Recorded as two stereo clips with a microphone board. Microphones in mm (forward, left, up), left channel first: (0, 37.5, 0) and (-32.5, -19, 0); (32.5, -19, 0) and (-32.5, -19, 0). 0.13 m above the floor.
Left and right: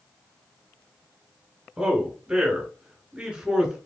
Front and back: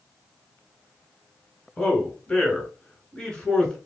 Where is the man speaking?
60° right, 1.2 m.